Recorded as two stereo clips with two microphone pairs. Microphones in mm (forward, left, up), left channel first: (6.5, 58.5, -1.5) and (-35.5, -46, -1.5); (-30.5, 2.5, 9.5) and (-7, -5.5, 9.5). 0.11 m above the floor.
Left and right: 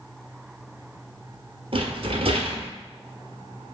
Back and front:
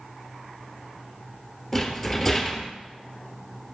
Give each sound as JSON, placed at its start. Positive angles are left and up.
{"t": 1.7, "sound": "a rattle", "azimuth_deg": -115, "distance_m": 1.3}